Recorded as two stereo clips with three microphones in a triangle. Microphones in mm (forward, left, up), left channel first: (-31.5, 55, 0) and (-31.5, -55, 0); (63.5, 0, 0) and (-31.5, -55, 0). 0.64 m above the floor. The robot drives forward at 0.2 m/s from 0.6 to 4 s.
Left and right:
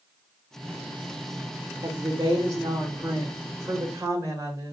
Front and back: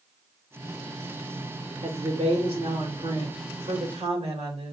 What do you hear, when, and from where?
1.8 s a woman speaking: 140° right, 1.7 m; by 4.7 s 150° right, 2 m